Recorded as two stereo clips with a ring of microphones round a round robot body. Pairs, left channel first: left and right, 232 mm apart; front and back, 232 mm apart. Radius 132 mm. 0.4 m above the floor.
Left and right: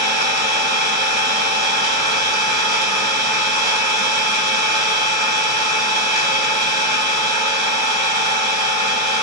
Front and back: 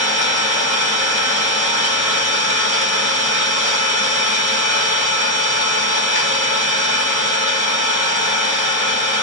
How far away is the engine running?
About 1.6 m.